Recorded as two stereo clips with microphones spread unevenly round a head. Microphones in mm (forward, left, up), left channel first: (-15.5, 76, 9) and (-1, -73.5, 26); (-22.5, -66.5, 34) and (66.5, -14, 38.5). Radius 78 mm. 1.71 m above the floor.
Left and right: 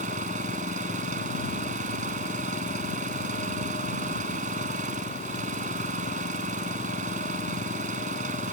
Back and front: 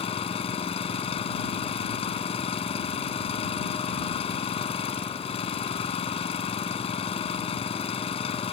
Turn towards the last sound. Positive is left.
turn(degrees=-125)